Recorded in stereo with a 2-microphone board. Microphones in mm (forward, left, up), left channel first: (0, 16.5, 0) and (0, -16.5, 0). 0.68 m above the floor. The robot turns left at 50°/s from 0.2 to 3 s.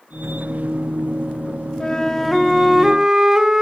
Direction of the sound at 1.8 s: 35° left.